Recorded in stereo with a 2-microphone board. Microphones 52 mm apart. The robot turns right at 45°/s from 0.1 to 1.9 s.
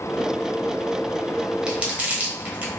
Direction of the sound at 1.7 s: 15° right (ahead or behind).